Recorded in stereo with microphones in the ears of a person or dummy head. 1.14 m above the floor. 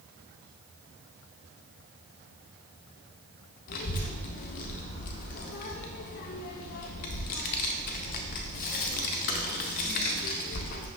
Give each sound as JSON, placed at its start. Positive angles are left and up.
{"t": 3.7, "sound": "a child speaking", "side_deg": 50, "distance_m": 0.5}